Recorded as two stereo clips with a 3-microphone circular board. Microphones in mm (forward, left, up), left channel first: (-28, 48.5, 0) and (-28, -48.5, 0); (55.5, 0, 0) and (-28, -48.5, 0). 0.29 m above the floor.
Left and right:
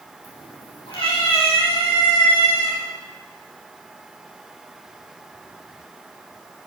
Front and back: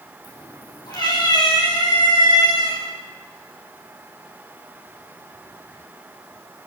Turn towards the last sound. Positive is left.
turn(degrees=65)